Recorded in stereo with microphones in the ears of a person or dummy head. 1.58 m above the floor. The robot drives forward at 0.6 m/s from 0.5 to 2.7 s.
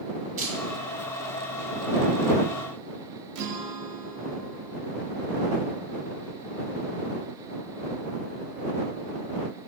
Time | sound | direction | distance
0.4 | a camera shutter | 40° right (ahead or behind) | 1.0 m
3.4 | a guitar | 65° right (ahead or behind) | 0.6 m